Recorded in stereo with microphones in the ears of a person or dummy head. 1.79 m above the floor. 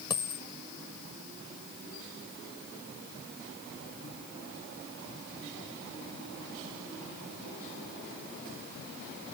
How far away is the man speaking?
I don't hear a man speaking.